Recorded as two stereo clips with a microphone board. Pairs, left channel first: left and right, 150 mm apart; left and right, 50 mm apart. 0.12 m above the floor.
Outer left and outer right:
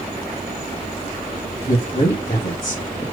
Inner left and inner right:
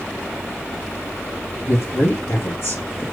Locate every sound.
1.6 s a man speaking: 50° left (ahead or behind), 2.5 m